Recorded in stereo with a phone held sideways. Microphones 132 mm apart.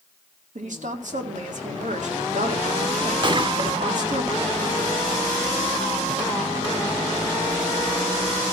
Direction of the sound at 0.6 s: 70° right (ahead or behind).